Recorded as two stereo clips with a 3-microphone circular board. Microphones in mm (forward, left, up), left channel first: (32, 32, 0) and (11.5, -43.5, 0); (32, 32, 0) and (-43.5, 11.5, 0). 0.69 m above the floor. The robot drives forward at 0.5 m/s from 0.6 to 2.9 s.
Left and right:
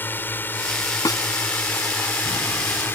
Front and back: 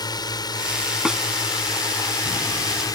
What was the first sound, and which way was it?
A drone, 15° left.